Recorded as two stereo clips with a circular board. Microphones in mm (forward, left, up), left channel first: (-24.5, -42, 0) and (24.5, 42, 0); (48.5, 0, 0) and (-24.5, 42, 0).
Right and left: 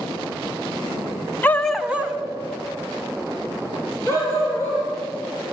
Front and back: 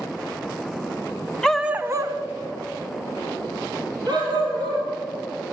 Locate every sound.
1.4 s a dog barking: 95° right, 0.5 m; by 4.9 s 115° left, 3.5 m